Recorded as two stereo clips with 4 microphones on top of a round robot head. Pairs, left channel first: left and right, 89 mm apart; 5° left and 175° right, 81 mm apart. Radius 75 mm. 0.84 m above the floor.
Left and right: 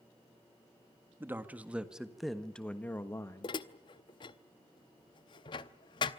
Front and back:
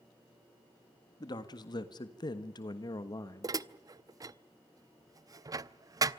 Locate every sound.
1.2 s a man speaking: 25° right, 1.8 m; by 3.6 s 45° left, 1.6 m
3.4 s dishes clattering: 135° left, 0.7 m